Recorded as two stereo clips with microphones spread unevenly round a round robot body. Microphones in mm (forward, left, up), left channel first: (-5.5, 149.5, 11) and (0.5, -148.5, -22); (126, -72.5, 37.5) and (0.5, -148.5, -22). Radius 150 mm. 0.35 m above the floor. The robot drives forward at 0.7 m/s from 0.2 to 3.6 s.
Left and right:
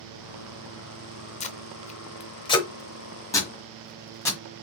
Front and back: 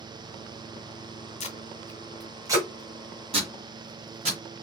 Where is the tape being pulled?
45° left, 0.6 m; by 4.4 s 175° left, 1.5 m.